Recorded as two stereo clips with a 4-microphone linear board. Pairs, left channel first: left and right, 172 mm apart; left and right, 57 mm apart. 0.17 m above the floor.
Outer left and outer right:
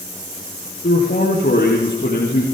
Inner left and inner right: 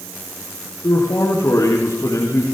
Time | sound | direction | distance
0.8 | a man speaking | 65° left (ahead or behind) | 5.5 m